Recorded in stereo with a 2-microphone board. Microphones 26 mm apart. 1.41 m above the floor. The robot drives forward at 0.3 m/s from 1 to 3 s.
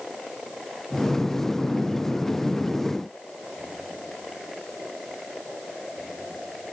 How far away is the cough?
I don't hear a cough.